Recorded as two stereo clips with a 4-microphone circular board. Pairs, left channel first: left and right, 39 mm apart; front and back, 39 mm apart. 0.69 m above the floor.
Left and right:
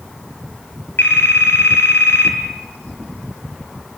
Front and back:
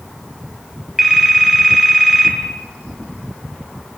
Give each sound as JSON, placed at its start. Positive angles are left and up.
{"t": 1.0, "sound": "a phone ringing", "azimuth_deg": 95, "distance_m": 3.5}